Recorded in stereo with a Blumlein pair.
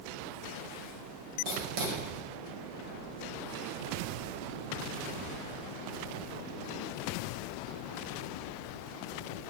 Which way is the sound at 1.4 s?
40° right.